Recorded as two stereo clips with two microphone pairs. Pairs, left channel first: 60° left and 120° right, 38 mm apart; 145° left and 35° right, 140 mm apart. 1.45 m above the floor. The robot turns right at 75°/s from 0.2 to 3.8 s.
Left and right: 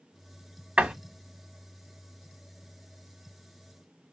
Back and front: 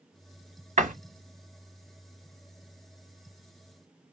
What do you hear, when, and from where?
0.8 s a door slam: 60° right, 1.5 m; by 0.9 s 45° right, 1.5 m